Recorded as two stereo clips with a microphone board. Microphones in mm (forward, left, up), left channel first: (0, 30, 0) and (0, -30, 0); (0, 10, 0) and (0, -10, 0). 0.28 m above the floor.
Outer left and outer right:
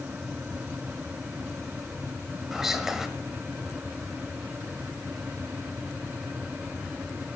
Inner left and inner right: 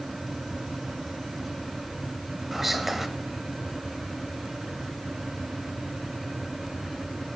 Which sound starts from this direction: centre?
Whispering, at 2.5 s.